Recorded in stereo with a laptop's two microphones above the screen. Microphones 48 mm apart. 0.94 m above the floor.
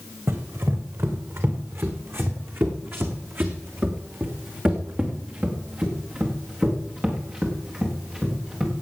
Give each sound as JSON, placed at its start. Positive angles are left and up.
{"t": 0.3, "sound": "running footsteps", "side_deg": -70, "distance_m": 3.0}